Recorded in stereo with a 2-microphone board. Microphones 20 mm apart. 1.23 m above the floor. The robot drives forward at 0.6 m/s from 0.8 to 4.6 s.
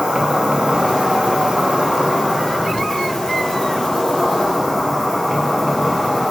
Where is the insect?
70° right (ahead or behind), 0.9 m; by 6.3 s 25° right (ahead or behind), 2 m.